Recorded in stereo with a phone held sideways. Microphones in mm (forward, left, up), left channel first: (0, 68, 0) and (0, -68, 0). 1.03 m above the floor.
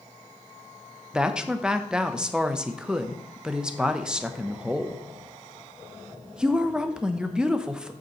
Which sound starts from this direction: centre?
A woman speaking, at 1.1 s.